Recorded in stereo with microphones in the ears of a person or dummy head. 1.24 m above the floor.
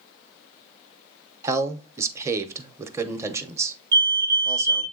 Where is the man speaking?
25° right (ahead or behind), 0.8 m.